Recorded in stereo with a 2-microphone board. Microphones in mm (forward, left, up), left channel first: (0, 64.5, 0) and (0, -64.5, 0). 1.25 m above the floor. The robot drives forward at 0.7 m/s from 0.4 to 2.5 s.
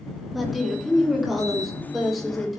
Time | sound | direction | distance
0.3 | a woman speaking | centre (ahead or behind) | 3 m